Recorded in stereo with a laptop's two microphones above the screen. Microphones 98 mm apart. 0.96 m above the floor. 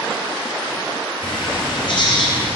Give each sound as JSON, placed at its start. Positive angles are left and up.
{"t": 1.2, "sound": "a bird", "side_deg": 60, "distance_m": 3.5}